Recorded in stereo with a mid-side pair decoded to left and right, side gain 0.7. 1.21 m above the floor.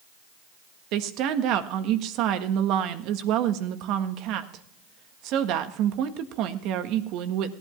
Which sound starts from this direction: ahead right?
A woman speaking, at 0.9 s.